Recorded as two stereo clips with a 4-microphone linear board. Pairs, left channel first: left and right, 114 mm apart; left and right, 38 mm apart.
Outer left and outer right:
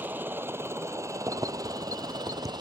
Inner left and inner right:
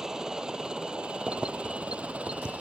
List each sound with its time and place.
0.0 s a helicopter: 15° right (ahead or behind); by 2.6 s 40° right (ahead or behind)
1.3 s keys jangling: 30° right (ahead or behind)